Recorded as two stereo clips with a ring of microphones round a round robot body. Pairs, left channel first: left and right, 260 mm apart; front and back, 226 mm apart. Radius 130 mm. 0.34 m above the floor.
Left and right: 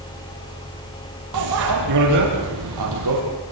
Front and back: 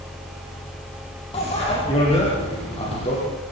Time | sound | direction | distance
1.3 | a bicycle bell | 70° right | 7.5 m